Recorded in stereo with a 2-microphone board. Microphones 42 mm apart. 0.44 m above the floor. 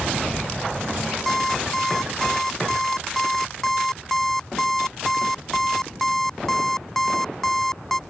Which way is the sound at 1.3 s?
10° left (ahead or behind).